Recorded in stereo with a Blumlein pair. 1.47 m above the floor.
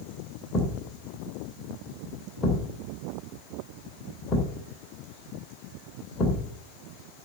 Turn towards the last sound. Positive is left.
turn(degrees=25)